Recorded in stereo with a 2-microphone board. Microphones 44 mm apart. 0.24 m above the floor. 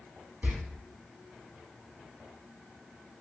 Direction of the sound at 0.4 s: 40° right (ahead or behind).